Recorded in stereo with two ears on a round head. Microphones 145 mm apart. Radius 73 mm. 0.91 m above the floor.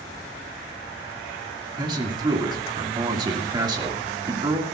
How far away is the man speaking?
About 1.8 m.